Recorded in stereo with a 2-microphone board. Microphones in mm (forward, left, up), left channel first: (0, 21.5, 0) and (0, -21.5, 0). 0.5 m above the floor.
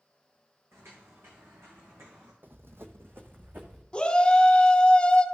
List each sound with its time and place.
0.7 s footsteps: 80° right, 2.5 m; by 2.3 s 70° right (ahead or behind), 3 m
2.4 s running footsteps: 55° right (ahead or behind), 1.0 m; by 3.8 s 40° right (ahead or behind), 2 m
3.9 s a shout: 25° left (ahead or behind), 1.1 m